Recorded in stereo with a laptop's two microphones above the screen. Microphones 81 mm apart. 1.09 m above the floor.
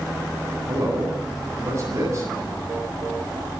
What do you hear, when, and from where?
0.7 s a man speaking: 35° right (ahead or behind), 9 m